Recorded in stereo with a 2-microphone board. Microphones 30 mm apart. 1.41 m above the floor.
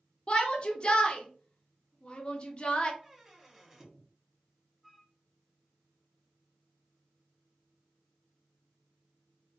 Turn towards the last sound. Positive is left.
turn(degrees=0)  # may be behind; listen again after turning